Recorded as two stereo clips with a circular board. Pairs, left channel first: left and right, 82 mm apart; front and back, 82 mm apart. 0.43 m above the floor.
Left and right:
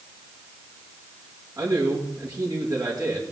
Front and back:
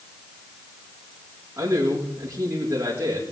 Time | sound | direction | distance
1.6 | a man speaking | 130° right | 5.5 m